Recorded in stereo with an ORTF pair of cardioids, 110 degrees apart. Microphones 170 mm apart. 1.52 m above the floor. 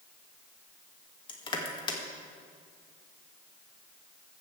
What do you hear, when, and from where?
1.3 s crushing: 30° left, 2 m